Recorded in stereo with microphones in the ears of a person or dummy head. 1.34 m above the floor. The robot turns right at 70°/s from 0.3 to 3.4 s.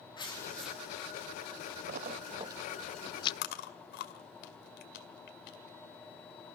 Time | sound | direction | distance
0.2 | tearing paper | 155° left | 3 m
1.9 | a splash | 50° right (ahead or behind) | 0.5 m
3.4 | chewing | 60° left (ahead or behind) | 1.8 m